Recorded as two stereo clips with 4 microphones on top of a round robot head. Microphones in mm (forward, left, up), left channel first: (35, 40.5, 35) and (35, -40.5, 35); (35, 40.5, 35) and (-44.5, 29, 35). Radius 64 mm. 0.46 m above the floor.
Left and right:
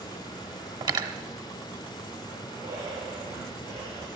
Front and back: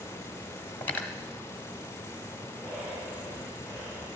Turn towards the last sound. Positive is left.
turn(degrees=-100)